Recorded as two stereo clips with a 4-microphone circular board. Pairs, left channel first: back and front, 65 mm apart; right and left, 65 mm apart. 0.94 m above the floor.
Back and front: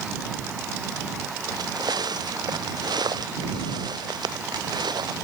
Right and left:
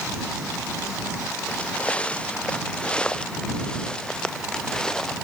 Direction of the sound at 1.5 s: 20° right.